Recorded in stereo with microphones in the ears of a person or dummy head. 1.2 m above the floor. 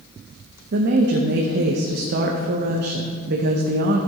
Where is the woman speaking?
60° right (ahead or behind), 0.9 m.